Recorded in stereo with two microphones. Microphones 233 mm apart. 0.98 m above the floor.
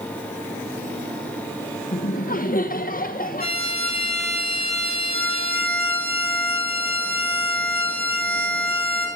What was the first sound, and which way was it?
Laughter, 35° left (ahead or behind).